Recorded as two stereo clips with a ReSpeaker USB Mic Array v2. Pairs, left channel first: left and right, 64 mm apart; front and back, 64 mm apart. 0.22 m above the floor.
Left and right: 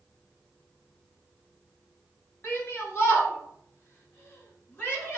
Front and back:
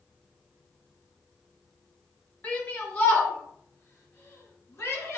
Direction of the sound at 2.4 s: 60° left.